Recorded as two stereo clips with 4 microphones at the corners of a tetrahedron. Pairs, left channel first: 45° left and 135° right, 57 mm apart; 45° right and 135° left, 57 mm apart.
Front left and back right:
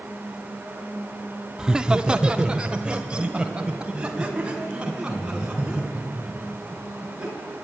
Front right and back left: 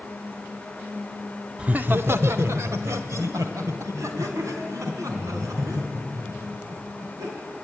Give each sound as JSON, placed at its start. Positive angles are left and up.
{"t": 1.6, "sound": "laughter", "azimuth_deg": 165, "distance_m": 0.7}